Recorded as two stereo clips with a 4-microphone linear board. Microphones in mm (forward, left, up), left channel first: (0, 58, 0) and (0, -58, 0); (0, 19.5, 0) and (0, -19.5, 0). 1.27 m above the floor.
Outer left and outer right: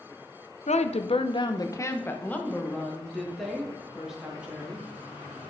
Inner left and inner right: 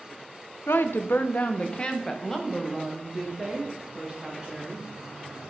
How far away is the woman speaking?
About 0.7 m.